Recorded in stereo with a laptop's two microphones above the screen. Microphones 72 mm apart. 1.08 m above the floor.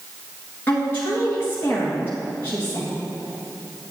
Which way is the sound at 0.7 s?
30° left (ahead or behind).